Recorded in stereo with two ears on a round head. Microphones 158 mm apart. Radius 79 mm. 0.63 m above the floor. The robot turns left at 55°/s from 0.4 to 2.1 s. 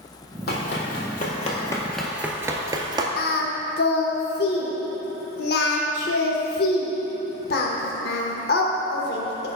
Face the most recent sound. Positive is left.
turn(degrees=60)  # may be behind; listen again after turning